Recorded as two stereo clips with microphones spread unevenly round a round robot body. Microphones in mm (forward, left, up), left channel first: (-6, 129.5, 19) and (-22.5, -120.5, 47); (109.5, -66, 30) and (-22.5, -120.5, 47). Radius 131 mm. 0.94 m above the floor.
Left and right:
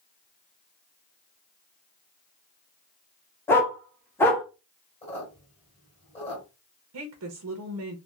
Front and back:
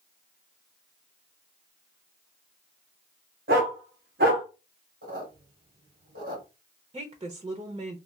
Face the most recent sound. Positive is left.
turn(degrees=-105)